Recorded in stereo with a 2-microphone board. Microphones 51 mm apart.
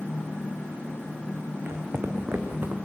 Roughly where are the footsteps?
Right.